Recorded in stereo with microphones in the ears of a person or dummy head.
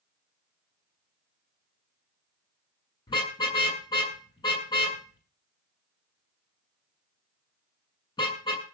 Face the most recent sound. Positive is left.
turn(degrees=25)  # may be behind; listen again after turning